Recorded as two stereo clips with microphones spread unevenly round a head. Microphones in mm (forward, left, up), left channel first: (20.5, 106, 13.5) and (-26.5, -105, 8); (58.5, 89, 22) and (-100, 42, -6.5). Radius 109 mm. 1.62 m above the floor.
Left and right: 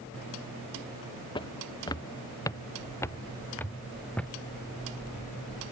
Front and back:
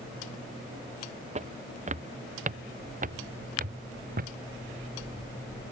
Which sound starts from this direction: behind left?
Footsteps, at 1.4 s.